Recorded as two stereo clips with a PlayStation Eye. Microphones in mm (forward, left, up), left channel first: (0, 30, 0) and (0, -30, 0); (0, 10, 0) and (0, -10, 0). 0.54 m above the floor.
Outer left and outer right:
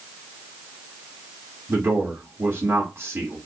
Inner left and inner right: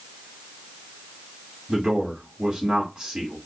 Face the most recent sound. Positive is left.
turn(degrees=-40)  # may be behind; listen again after turning